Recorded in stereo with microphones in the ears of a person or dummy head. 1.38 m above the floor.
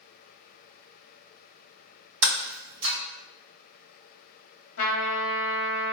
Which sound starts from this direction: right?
Breaking glass, at 2.2 s.